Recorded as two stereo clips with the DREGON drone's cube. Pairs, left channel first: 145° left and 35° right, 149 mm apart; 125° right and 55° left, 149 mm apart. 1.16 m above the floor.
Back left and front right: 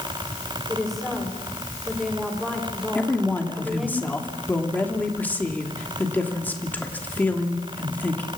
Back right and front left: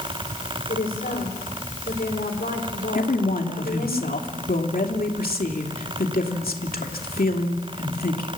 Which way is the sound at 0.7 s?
125° right.